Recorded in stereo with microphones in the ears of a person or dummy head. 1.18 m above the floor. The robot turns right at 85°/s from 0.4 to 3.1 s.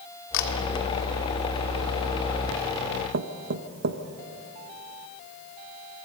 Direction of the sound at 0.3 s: 65° left (ahead or behind).